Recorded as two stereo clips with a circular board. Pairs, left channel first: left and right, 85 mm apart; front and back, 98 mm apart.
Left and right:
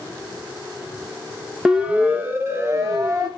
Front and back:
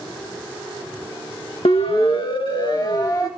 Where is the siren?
10° right, 2.5 m; by 3.3 s 50° right, 3 m.